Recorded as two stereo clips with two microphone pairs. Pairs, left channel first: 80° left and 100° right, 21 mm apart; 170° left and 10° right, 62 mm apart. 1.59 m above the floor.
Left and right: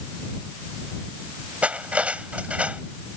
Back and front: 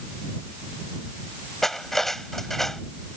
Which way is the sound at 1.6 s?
105° right.